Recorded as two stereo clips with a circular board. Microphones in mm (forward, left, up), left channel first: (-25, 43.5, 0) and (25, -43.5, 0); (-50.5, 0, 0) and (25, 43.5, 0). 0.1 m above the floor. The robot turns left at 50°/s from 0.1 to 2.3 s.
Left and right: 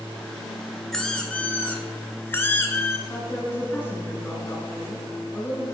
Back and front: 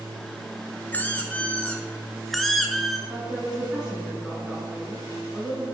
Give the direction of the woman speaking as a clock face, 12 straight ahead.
9 o'clock.